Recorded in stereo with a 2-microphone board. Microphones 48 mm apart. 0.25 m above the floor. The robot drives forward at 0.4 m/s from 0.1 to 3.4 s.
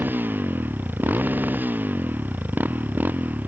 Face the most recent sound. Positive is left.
turn(degrees=-40)  # may be behind; listen again after turning